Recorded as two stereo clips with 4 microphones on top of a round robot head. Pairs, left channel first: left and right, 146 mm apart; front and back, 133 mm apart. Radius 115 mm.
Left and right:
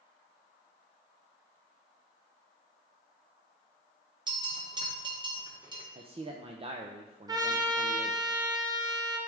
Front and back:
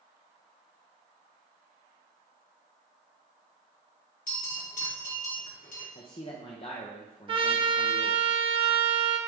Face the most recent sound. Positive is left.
turn(degrees=-145)